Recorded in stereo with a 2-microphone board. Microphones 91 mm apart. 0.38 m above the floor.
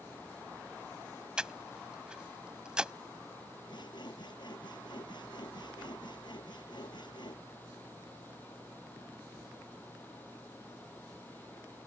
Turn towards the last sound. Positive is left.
turn(degrees=55)  # may be behind; listen again after turning